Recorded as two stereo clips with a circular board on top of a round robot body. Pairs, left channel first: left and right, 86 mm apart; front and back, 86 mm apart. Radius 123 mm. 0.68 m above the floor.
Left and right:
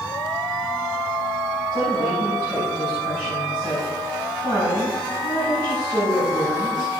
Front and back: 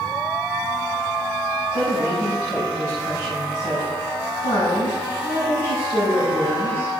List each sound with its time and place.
1.7 s a woman speaking: 40° right, 6.5 m